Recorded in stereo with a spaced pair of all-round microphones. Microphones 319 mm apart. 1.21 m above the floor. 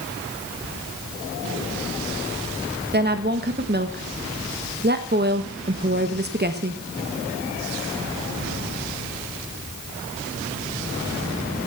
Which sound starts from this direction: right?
A woman speaking, at 2.9 s.